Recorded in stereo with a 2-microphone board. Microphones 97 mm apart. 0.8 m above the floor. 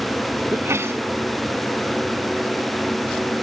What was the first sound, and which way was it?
A sneeze, 25° right (ahead or behind).